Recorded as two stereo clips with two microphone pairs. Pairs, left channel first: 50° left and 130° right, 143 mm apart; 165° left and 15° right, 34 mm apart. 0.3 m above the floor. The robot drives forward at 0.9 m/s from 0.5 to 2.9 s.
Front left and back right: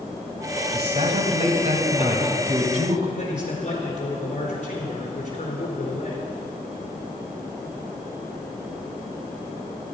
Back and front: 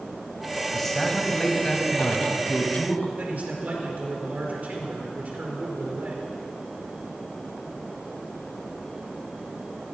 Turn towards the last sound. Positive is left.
turn(degrees=15)